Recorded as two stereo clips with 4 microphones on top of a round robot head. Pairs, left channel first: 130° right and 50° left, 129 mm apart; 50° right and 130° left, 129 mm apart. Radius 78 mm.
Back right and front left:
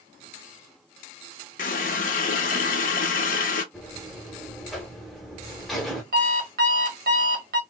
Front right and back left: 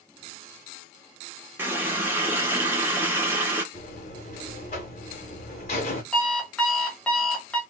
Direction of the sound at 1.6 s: 155° right.